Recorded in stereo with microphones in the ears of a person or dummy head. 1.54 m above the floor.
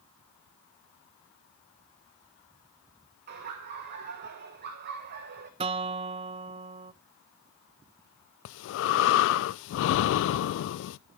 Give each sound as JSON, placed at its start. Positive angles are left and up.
{"t": 3.3, "sound": "laughter", "side_deg": -45, "distance_m": 1.2}
{"t": 5.6, "sound": "a guitar", "side_deg": -30, "distance_m": 0.5}
{"t": 8.4, "sound": "breathing", "side_deg": 65, "distance_m": 0.6}